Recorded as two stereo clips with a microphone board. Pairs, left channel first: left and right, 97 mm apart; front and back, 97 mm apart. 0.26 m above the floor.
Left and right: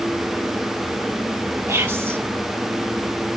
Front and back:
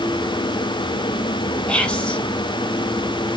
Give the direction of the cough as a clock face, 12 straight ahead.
No cough in this recording.